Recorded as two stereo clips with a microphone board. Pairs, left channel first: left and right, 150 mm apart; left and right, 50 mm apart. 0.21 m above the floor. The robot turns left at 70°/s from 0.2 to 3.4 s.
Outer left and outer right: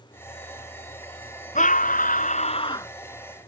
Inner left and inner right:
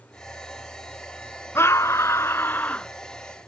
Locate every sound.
1.6 s a scream: 115° left; by 2.9 s 20° left